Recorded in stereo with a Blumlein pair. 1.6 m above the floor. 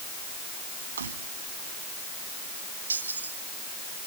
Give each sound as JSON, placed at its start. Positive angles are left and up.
{"t": 1.0, "sound": "keys jangling", "azimuth_deg": -65}